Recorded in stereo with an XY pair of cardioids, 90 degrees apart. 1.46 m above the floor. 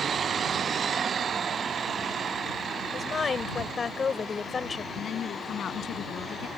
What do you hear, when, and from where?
2.9 s a woman speaking: 45° left
4.9 s a woman speaking: 70° left